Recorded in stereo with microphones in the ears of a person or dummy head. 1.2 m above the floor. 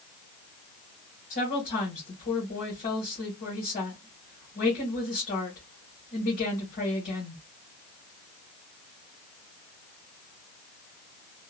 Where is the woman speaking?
45° left (ahead or behind), 1.4 m.